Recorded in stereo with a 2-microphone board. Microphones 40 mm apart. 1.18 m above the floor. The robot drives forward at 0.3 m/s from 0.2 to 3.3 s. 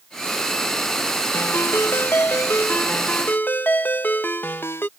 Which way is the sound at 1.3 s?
90° left.